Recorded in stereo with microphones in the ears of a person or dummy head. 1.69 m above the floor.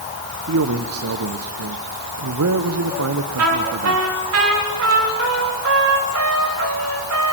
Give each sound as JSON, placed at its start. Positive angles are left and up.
{"t": 0.5, "sound": "a man speaking", "side_deg": -85, "distance_m": 1.1}
{"t": 3.4, "sound": "a trumpet", "side_deg": -90, "distance_m": 4.0}